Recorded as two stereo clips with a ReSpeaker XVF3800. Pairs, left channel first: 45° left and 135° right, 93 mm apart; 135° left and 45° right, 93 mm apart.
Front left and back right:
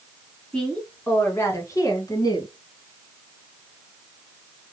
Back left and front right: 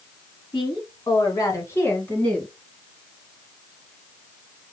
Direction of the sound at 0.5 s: 120° left.